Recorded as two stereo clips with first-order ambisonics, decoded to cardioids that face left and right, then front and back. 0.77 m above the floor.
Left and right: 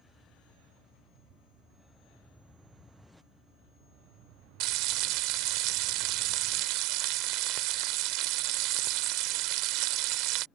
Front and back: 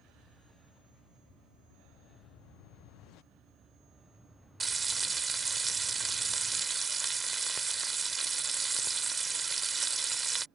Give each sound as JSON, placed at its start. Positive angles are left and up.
{"t": 4.6, "sound": "frying", "azimuth_deg": -105}